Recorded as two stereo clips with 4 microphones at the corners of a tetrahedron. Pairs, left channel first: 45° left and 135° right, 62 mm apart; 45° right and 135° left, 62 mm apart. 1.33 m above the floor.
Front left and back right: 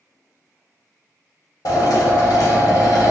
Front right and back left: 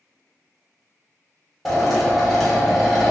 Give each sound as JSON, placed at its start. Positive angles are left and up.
{"t": 1.6, "sound": "a drill", "azimuth_deg": 45, "distance_m": 1.2}